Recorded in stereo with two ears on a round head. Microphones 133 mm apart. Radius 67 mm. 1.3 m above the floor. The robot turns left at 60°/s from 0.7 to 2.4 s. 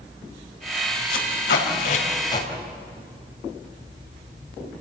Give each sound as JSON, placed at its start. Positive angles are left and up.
{"t": 1.1, "sound": "tape being pulled", "side_deg": 75, "distance_m": 4.5}